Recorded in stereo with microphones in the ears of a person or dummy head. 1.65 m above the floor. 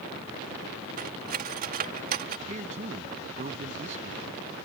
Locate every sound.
1.0 s cutlery clinking: 45° right (ahead or behind)
2.5 s a man speaking: 40° right (ahead or behind)